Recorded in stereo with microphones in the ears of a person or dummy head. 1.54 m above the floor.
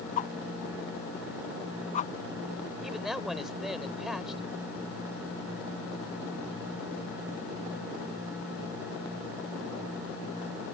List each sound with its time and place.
0.2 s a whoosh: 40° left (ahead or behind)
2.8 s a man speaking: centre (ahead or behind)